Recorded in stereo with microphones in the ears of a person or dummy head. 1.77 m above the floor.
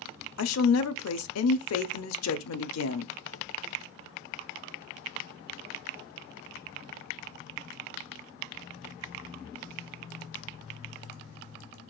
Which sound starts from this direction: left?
A woman speaking, at 0.4 s.